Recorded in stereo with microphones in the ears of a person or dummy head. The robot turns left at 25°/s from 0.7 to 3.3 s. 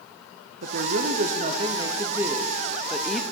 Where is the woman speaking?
120° right, 0.6 m; by 3.2 s 175° left, 0.6 m.